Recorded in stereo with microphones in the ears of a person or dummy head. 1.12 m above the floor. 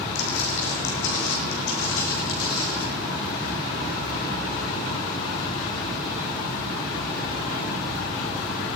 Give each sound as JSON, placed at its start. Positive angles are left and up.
{"t": 0.1, "sound": "footsteps", "side_deg": 65, "distance_m": 3.0}